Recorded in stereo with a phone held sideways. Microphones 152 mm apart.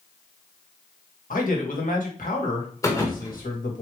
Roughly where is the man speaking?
Left.